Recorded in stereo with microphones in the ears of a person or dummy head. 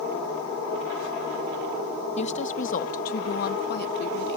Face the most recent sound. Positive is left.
turn(degrees=60)  # may be behind; listen again after turning